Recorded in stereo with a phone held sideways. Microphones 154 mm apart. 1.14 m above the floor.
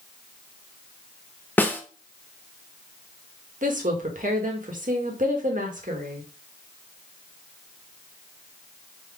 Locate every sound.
1.6 s a snare drum: 10° left (ahead or behind), 0.7 m
3.6 s a woman speaking: 60° right (ahead or behind), 1.3 m